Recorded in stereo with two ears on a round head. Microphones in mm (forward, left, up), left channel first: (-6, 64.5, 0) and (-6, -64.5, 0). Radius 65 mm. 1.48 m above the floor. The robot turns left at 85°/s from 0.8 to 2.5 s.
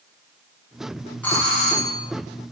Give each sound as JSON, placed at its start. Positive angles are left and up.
{"t": 1.2, "sound": "a doorbell", "azimuth_deg": 170, "distance_m": 4.0}